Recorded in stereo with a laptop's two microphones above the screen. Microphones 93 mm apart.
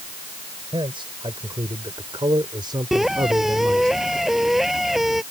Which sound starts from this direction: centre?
A squeak, at 2.9 s.